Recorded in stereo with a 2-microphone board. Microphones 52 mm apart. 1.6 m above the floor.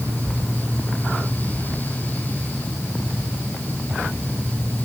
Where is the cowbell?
I don't hear a cowbell.